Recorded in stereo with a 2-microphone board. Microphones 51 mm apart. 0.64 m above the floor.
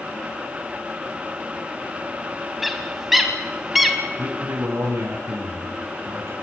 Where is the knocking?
I don't hear knocking.